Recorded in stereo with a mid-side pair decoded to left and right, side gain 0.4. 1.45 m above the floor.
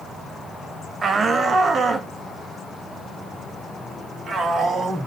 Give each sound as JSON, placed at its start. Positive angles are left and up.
{"t": 1.0, "sound": "a shout", "azimuth_deg": -45, "distance_m": 1.4}